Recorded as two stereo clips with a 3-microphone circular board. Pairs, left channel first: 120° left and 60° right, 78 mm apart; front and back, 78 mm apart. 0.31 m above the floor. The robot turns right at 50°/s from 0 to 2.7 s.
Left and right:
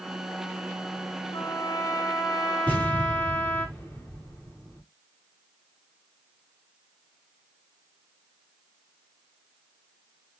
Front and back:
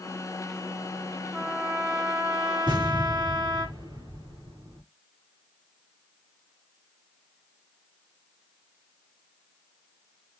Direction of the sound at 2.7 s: 175° right.